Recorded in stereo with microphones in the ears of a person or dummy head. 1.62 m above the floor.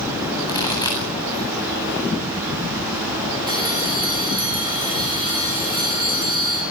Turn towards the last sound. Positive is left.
turn(degrees=-15)  # may be behind; listen again after turning